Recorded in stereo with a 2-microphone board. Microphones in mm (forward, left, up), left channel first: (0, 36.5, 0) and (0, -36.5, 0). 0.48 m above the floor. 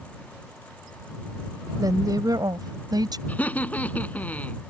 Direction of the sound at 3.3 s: 20° left (ahead or behind).